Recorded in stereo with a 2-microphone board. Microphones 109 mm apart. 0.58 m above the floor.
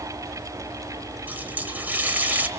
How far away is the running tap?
About 1.8 m.